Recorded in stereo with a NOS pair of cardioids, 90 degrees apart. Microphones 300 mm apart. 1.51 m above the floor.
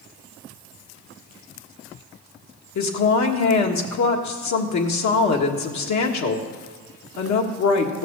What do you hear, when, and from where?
2.8 s a woman speaking: 70° left, 1.7 m